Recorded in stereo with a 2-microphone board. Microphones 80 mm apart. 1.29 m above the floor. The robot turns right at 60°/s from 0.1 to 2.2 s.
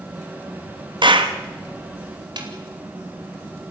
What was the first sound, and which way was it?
A clap, 65° right (ahead or behind).